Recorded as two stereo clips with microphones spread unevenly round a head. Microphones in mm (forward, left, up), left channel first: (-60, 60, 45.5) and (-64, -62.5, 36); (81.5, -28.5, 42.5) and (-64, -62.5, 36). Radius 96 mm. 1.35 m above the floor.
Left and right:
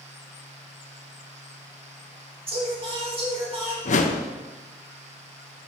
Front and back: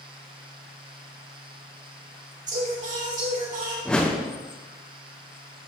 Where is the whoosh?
95° left, 0.8 m.